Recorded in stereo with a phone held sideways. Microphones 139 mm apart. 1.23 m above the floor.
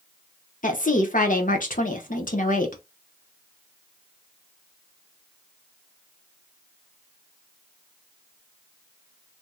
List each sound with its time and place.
0.6 s a woman speaking: 70° left (ahead or behind), 1.0 m